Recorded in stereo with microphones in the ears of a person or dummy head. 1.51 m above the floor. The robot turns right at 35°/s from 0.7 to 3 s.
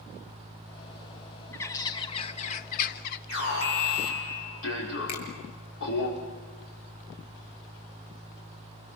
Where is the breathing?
No breathing in this recording.